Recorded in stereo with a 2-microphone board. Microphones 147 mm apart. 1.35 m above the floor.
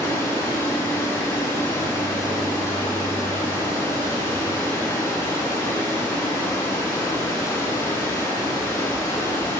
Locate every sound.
0.0 s running water: 20° left (ahead or behind), 5 m